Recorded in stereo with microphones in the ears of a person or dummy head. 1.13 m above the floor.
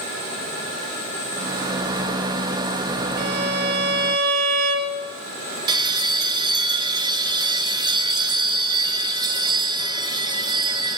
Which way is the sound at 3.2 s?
50° right (ahead or behind).